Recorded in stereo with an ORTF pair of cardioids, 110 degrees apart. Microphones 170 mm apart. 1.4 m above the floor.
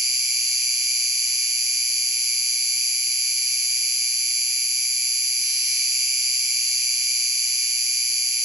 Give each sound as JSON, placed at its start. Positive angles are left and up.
{"t": 0.0, "sound": "an insect", "azimuth_deg": -20, "distance_m": 6.5}